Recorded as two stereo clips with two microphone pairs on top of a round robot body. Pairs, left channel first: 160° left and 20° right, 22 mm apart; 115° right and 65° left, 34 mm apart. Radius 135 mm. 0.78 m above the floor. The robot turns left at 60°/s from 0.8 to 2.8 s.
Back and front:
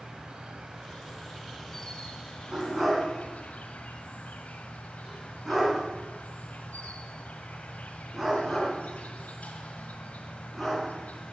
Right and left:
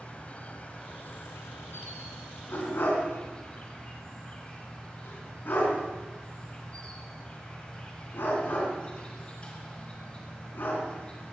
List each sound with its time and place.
0.0 s an insect: 65° right, 1.3 m; by 11.3 s 175° left, 1.3 m
2.5 s a dog barking: 75° right, 3.5 m; by 11.3 s 95° right, 3.5 m